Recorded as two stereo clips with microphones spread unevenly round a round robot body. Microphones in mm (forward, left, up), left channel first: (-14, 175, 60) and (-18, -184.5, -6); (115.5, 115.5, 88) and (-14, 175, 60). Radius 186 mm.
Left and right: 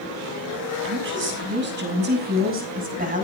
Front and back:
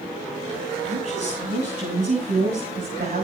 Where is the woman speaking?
150° right, 6 m; by 3.3 s 160° right, 5.5 m.